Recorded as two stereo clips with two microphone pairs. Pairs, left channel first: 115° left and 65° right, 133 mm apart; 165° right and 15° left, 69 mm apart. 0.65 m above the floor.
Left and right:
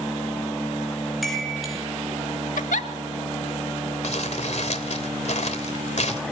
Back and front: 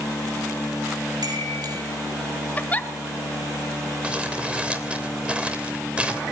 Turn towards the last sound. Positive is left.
turn(degrees=90)